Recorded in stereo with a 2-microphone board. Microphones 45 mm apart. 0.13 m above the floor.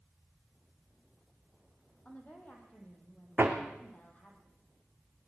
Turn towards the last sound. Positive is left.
turn(degrees=-45)  # may be behind; listen again after turning